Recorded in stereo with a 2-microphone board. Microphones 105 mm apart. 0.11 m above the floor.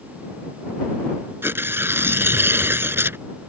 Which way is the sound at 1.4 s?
25° right (ahead or behind).